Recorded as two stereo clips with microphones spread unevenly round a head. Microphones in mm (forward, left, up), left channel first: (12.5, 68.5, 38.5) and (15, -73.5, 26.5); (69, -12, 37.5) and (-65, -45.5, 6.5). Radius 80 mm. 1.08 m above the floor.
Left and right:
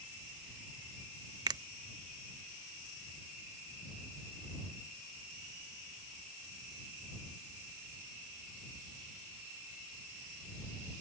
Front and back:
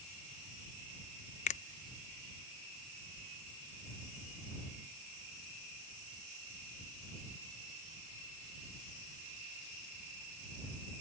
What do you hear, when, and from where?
1.5 s a finger snap: 25° right